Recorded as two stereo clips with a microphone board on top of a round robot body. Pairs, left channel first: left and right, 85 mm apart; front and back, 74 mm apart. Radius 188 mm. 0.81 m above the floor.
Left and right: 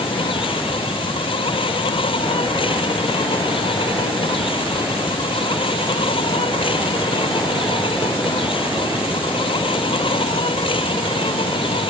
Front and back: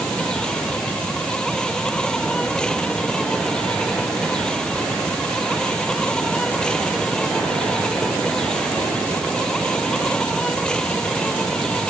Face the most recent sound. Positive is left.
turn(degrees=80)